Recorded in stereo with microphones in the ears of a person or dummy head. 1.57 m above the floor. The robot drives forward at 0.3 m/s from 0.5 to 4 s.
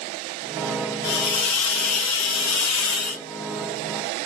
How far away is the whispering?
No whispering in this recording.